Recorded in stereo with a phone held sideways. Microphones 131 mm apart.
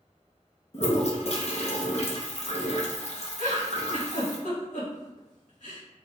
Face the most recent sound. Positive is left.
turn(degrees=70)  # may be behind; listen again after turning